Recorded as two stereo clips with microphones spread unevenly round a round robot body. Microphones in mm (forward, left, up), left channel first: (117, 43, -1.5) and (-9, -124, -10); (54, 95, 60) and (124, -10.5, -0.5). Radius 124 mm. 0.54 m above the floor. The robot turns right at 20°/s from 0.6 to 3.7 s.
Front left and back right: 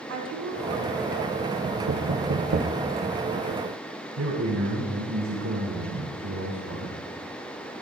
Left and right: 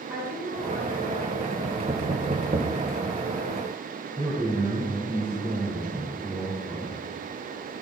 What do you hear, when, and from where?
0.1 s a woman speaking: 120° right, 5.5 m; by 1.5 s 105° right, 5.5 m
1.6 s knocking: 115° right, 1.1 m; by 2.8 s 95° right, 1.1 m
4.2 s a man speaking: 140° right, 4.5 m